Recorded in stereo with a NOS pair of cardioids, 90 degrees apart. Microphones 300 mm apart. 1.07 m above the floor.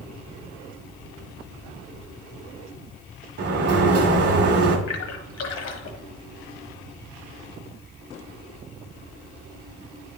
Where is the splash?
65° left, 1.2 m.